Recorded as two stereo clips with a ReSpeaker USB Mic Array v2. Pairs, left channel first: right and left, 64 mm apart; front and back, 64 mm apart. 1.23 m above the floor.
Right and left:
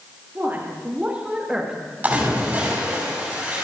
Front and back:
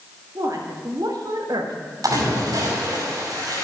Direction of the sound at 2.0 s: 160° left.